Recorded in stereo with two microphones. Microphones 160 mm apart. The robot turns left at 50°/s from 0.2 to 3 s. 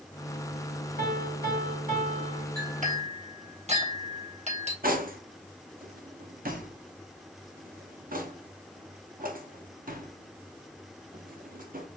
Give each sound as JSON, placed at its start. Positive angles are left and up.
{"t": 1.0, "sound": "a piano", "azimuth_deg": -70, "distance_m": 1.8}
{"t": 2.6, "sound": "a clink", "side_deg": -65, "distance_m": 1.5}
{"t": 4.8, "sound": "cutlery clinking", "side_deg": -65, "distance_m": 0.6}